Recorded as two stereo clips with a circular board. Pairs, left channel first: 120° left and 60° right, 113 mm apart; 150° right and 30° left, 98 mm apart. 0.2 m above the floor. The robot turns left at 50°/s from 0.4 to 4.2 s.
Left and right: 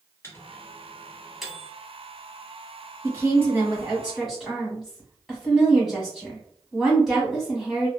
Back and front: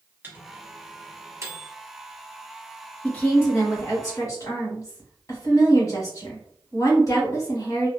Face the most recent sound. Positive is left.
turn(degrees=-140)